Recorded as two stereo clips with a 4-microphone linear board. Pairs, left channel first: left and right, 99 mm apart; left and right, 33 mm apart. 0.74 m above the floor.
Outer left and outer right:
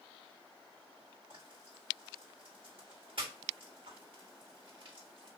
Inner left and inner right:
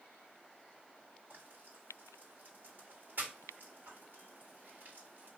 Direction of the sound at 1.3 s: 60° right (ahead or behind).